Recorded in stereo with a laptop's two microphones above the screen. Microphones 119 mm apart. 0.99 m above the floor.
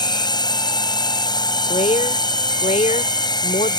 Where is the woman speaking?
80° left.